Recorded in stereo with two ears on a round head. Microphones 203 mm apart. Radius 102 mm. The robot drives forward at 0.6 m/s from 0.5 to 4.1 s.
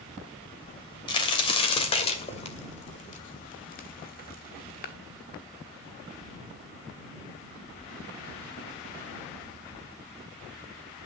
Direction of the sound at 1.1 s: 20° left (ahead or behind).